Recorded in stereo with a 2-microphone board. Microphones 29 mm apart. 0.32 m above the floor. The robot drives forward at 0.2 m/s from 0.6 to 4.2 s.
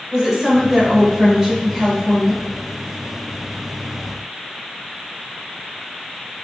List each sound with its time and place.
0.1 s a woman speaking: 25° right (ahead or behind), 1.1 m